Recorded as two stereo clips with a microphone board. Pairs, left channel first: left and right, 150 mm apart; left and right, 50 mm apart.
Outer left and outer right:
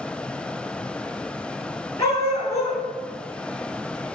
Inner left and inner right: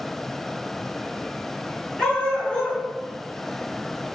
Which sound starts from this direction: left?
A dog barking, at 2.0 s.